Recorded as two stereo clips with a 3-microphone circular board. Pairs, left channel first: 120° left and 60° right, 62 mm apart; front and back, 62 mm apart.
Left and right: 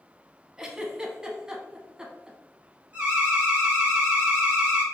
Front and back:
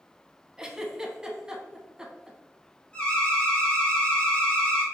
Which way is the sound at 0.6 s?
120° right.